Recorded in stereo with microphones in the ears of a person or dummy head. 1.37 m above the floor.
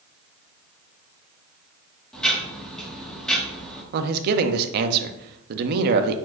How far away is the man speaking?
About 0.6 m.